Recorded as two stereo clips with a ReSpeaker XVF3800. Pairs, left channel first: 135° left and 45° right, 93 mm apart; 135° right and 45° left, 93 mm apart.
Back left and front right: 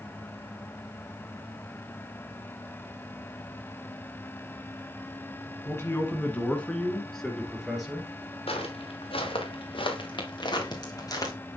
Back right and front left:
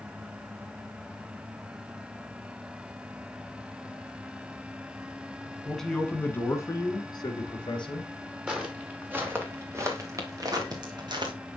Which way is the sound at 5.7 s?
135° left.